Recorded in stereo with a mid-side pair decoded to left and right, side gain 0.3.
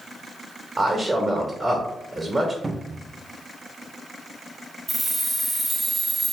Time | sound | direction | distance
0.8 | a man speaking | 35° right | 1.1 m
2.6 | a cupboard door | 30° right | 0.5 m
4.9 | keys jangling | 40° right | 1.2 m